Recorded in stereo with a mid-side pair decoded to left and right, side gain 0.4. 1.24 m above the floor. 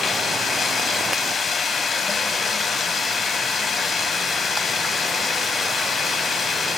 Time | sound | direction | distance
0.0 | running water | 50° left | 4 m